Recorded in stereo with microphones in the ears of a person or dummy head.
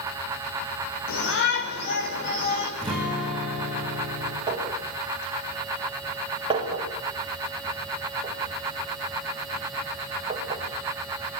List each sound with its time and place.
1.1 s a shout: 60° left (ahead or behind), 6 m; by 2.7 s 40° left (ahead or behind), 5.5 m
2.8 s a guitar: centre (ahead or behind), 10 m
4.5 s a clink: 30° right (ahead or behind), 5.5 m